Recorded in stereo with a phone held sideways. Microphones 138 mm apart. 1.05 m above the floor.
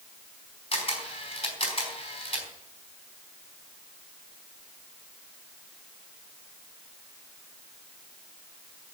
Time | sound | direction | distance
0.7 | a camera shutter | 40° left (ahead or behind) | 4 m